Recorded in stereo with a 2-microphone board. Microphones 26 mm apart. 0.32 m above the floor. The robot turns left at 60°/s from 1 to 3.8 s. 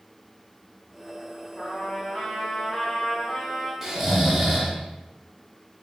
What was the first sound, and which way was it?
A trumpet, 145° left.